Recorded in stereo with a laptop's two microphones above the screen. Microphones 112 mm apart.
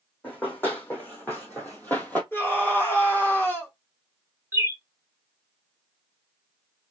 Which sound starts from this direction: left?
A scream, at 2.3 s.